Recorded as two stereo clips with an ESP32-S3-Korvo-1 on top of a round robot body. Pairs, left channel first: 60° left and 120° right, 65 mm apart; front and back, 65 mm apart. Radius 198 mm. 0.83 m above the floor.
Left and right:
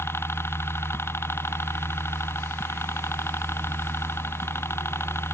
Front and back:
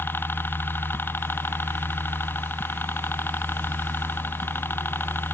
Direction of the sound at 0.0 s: 40° left.